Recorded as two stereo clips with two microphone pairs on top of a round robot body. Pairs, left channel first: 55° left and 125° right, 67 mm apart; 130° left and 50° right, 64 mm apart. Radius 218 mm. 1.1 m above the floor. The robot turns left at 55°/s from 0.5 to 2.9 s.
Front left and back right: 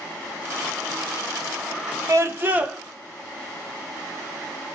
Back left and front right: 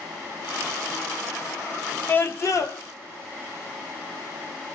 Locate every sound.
2.1 s a scream: 160° right, 1.0 m; by 2.8 s 160° left, 1.0 m